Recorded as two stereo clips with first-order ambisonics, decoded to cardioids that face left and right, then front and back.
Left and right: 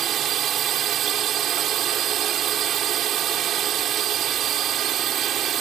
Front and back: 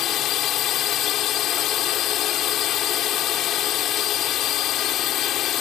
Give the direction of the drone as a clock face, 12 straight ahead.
1 o'clock.